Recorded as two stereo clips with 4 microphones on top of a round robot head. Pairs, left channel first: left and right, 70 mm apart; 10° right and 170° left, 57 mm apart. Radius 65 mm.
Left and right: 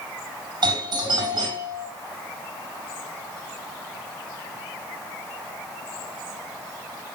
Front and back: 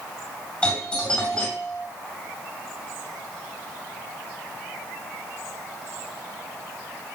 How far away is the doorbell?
About 5 m.